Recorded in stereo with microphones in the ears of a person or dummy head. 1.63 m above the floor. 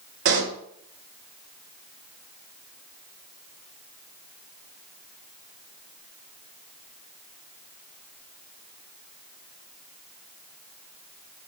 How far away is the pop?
About 2.5 m.